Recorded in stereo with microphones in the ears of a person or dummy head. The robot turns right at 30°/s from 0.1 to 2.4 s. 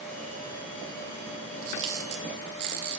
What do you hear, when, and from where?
1.6 s a camera shutter: 65° right (ahead or behind), 0.9 m; by 3.0 s 60° right (ahead or behind), 0.9 m